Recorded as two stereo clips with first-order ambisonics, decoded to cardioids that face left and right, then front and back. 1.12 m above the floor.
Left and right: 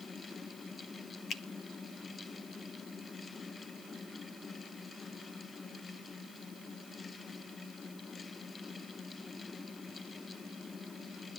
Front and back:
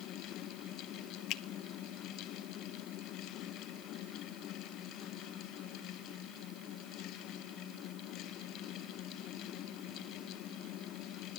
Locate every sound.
1.3 s a finger snap: 30° left, 0.9 m